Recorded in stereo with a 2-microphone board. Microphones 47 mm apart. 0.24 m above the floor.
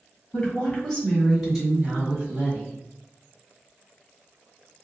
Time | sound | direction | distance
0.3 | a woman speaking | 25° left (ahead or behind) | 1.5 m